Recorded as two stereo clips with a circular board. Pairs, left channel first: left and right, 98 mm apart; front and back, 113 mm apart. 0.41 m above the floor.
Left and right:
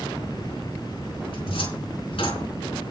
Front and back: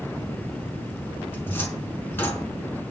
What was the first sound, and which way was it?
A cupboard door, 70° left.